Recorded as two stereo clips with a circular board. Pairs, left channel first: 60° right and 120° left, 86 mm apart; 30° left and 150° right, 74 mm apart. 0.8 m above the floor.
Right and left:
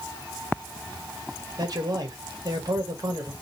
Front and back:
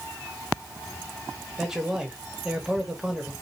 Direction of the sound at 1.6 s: 130° left.